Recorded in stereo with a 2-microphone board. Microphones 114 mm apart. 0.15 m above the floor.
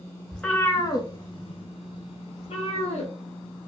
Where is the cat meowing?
5° left (ahead or behind), 0.6 m; by 3.1 s 60° left (ahead or behind), 1.3 m.